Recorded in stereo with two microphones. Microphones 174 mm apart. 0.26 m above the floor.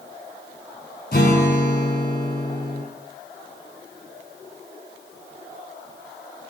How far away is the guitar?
About 1.6 m.